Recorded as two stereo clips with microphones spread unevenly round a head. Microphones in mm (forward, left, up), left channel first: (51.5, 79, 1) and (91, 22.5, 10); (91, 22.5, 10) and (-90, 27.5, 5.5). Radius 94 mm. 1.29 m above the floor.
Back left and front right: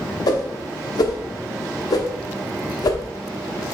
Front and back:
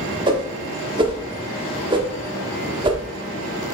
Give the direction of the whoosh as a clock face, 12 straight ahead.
8 o'clock.